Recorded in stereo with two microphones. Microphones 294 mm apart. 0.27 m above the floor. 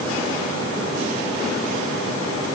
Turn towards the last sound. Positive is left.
No sound to turn to.